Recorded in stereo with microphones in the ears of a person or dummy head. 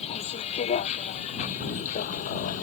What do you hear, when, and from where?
0.0 s a vehicle: 40° left (ahead or behind); by 2.6 s 45° left (ahead or behind)